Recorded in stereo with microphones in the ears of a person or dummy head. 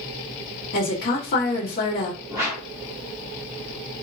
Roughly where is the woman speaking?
Left.